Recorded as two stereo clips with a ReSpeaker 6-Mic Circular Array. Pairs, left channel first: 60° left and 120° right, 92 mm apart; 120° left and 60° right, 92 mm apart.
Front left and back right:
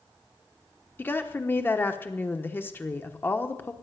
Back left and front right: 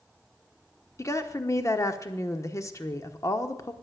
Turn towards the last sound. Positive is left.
turn(degrees=105)